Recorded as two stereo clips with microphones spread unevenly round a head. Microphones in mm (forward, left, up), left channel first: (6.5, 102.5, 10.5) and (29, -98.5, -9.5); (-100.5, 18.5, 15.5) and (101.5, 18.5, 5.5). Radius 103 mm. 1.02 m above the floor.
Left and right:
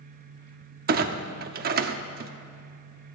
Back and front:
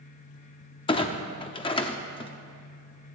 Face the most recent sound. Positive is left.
turn(degrees=-120)